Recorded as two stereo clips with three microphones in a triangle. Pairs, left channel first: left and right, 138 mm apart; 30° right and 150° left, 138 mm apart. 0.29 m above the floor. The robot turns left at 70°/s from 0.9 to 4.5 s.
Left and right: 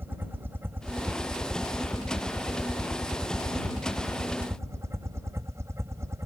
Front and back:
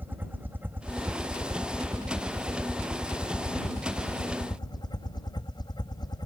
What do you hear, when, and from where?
0.0 s a helicopter: 150° right; by 6.3 s 40° right